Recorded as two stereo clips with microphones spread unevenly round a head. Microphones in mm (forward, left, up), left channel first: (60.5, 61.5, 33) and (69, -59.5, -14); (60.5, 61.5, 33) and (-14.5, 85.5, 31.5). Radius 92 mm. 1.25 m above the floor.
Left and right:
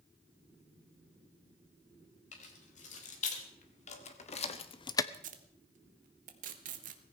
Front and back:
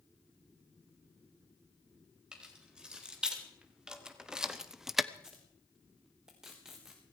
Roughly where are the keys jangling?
Left.